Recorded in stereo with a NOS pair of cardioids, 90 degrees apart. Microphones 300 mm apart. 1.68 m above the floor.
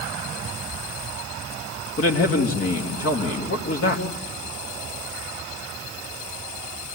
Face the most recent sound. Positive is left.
turn(degrees=45)